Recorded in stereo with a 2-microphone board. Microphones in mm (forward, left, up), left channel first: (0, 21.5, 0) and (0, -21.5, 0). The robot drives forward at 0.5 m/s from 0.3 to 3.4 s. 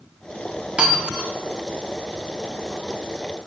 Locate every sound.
0.8 s breaking glass: 25° right (ahead or behind), 1.0 m; by 1.3 s 20° right (ahead or behind), 1.1 m